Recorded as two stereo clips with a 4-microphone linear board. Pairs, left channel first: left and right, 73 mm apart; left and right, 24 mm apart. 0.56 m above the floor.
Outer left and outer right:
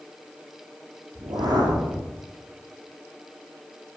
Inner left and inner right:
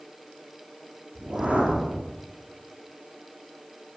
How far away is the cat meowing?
No cat meowing in this recording.